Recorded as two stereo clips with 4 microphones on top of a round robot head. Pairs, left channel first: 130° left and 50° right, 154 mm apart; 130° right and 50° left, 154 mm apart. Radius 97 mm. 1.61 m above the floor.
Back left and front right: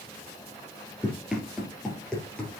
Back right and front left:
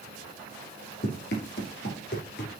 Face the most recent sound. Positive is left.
turn(degrees=-150)